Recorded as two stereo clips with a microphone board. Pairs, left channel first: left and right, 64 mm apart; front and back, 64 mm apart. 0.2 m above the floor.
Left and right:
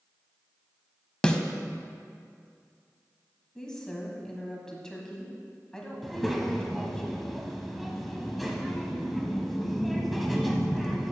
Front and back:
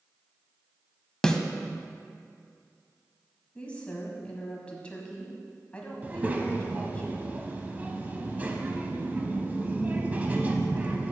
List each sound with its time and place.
1.2 s a snare drum: 55° left, 0.6 m
3.5 s a woman speaking: 30° left, 1.2 m
6.0 s a child speaking: 175° left, 0.8 m